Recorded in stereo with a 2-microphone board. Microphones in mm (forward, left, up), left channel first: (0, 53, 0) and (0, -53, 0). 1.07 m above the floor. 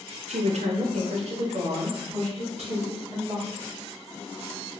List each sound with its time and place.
0.3 s a woman speaking: 80° right, 0.6 m; by 3.8 s 65° right (ahead or behind), 3 m